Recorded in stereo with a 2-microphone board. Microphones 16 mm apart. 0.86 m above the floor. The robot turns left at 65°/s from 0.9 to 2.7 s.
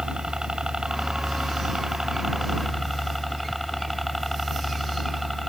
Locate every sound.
0.0 s a helicopter: 65° right; by 5.5 s straight behind